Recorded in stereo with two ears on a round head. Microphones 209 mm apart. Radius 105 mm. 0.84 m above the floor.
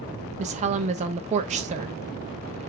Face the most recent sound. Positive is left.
turn(degrees=-30)  # may be behind; listen again after turning